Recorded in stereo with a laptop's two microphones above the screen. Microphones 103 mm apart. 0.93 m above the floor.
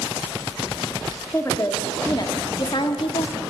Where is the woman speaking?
25° left (ahead or behind), 2.0 m; by 3.4 s 60° left (ahead or behind), 1.6 m.